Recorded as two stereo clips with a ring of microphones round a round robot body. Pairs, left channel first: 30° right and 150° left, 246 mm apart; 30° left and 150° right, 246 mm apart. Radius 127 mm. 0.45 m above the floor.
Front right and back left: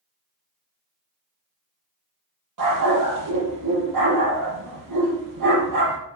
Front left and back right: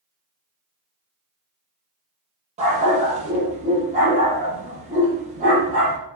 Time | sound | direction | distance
2.6 | a dog barking | 145° left | 5 m